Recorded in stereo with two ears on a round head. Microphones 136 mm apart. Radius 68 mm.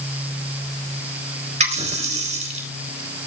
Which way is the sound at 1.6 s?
50° right (ahead or behind).